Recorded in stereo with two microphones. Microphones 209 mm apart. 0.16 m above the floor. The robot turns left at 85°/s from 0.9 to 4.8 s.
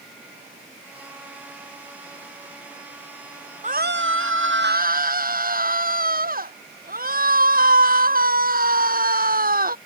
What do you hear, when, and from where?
3.6 s a scream: 35° right; by 9.8 s 135° right